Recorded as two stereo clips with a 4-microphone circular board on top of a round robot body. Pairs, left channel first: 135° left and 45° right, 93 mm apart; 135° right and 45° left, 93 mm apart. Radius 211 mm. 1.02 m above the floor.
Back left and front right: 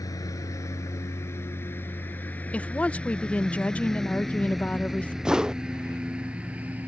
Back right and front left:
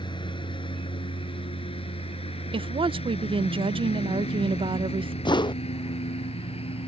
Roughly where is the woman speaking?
Ahead left.